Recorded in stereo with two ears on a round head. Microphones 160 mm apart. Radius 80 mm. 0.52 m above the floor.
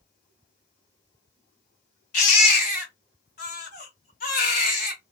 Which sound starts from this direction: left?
A baby crying, at 2.1 s.